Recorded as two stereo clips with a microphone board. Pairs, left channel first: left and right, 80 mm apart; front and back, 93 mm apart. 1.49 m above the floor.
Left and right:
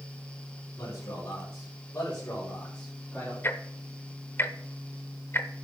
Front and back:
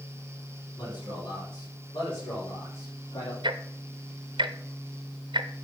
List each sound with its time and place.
0.8 s a man speaking: 35° left, 5.5 m; by 3.3 s 10° left, 3 m
3.4 s ticking: 150° left, 0.7 m